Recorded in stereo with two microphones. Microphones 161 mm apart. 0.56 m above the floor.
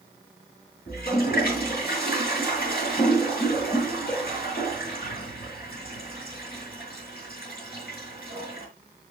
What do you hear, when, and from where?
0.9 s a toilet flushing: 70° left (ahead or behind), 8.5 m